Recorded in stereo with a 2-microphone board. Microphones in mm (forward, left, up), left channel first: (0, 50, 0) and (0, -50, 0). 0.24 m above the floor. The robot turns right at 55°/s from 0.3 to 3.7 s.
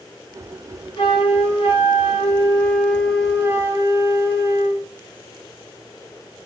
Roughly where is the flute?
Ahead left.